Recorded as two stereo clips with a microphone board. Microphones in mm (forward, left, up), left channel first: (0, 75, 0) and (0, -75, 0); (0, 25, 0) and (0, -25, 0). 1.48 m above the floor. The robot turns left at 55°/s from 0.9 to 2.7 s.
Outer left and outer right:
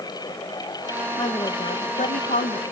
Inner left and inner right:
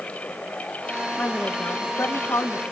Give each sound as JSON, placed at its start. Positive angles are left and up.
{"t": 1.2, "sound": "a woman speaking", "azimuth_deg": 155, "distance_m": 1.0}